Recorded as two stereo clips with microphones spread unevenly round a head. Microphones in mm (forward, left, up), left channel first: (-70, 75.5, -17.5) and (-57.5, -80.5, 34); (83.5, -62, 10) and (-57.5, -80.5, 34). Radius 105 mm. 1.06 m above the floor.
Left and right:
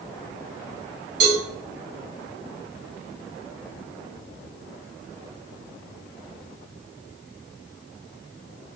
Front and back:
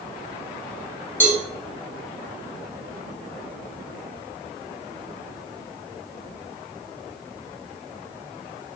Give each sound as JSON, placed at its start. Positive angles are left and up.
{"t": 1.2, "sound": "a cowbell", "azimuth_deg": -70, "distance_m": 3.0}